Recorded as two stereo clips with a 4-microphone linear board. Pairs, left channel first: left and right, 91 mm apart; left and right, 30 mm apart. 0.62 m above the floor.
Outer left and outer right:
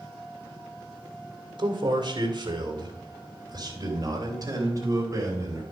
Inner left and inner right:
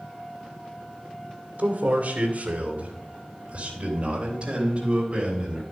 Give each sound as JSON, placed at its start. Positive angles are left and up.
{"t": 1.6, "sound": "a man speaking", "side_deg": -60, "distance_m": 2.5}